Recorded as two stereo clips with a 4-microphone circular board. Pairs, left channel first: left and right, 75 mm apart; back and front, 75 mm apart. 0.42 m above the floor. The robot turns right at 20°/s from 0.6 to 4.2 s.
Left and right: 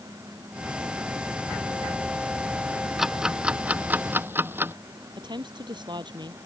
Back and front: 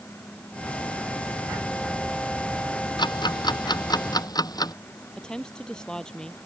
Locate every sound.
3.0 s ticking: 175° right; by 4.7 s 150° right
5.2 s a woman speaking: 100° right